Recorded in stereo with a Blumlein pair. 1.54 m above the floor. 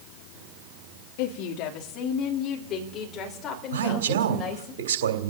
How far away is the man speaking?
About 3 m.